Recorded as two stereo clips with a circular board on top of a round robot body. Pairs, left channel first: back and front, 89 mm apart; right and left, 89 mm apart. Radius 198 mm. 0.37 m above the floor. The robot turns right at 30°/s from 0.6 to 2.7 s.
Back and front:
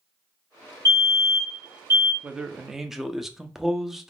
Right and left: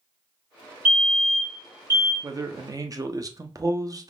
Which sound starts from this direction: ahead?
A fire alarm, at 0.8 s.